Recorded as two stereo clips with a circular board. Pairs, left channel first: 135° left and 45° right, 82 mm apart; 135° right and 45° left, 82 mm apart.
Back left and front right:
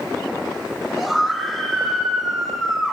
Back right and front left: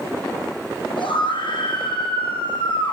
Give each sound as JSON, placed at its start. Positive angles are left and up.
{"t": 1.0, "sound": "a scream", "azimuth_deg": -135, "distance_m": 7.5}